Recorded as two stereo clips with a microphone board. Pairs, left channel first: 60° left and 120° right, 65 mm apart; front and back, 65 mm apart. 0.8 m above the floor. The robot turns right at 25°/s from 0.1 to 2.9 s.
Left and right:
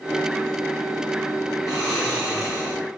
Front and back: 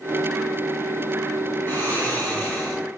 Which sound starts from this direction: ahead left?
Snoring, at 1.7 s.